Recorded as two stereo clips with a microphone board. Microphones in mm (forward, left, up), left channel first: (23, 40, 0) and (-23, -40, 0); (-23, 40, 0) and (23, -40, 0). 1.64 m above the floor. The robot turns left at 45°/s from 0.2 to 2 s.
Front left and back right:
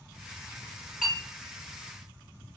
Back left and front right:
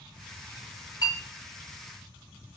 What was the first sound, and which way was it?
A clink, 155° left.